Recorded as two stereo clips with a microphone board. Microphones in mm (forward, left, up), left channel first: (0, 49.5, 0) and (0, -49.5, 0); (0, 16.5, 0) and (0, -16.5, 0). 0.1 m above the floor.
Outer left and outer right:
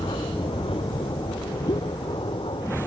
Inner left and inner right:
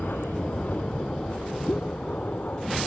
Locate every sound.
0.0 s an aircraft: 65° left (ahead or behind)
1.7 s a pop: 45° left (ahead or behind)